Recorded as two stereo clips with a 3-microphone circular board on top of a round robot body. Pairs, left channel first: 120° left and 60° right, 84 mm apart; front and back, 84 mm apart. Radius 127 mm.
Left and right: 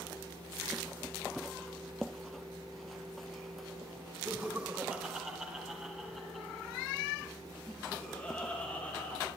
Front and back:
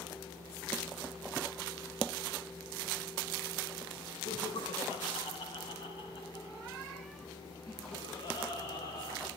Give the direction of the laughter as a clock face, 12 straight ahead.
12 o'clock.